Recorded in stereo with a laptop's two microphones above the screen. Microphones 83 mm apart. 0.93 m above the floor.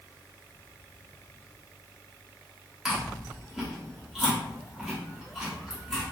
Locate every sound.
2.9 s chewing: 5° right (ahead or behind), 1.1 m